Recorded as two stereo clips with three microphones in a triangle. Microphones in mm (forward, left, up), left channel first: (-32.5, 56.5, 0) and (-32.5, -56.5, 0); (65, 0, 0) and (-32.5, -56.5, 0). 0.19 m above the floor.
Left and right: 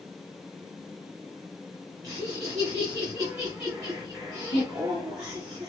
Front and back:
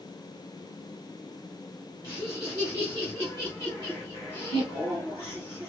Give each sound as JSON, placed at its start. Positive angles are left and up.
{"t": 2.0, "sound": "laughter", "azimuth_deg": -30, "distance_m": 2.5}